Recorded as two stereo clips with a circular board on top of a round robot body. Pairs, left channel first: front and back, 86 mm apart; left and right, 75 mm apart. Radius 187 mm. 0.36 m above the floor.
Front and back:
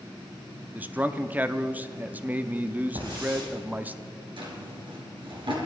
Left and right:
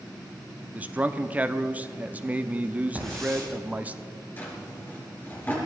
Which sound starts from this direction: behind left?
A drawer, at 4.4 s.